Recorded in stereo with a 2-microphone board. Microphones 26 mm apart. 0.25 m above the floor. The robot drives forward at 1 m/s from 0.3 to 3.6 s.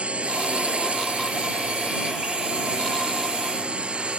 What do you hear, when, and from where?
0.0 s a drone: 60° right (ahead or behind); by 4.2 s 55° right (ahead or behind)